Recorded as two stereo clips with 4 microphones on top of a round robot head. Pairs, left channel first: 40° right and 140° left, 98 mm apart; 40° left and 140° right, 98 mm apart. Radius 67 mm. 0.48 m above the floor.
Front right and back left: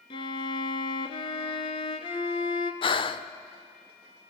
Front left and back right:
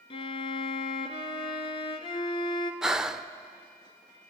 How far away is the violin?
About 1.4 m.